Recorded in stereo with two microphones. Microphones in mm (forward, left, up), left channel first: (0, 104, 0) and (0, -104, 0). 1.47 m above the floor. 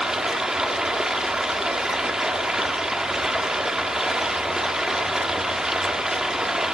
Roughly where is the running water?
Centre.